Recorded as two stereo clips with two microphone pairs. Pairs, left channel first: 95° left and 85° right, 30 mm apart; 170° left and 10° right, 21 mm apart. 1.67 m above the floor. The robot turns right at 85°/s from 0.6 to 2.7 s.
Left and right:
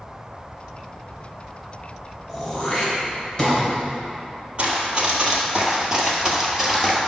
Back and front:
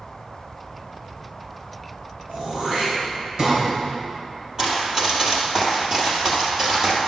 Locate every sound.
2.3 s throat clearing: 10° right, 3.5 m; by 3.6 s 25° left, 3.5 m
4.6 s running footsteps: 55° right, 2.5 m; by 7.0 s straight ahead, 1.8 m